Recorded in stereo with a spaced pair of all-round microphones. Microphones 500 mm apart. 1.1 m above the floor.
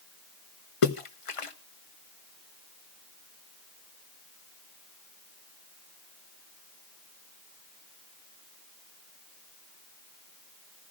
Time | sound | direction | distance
0.8 | a splash | 75° left (ahead or behind) | 1.0 m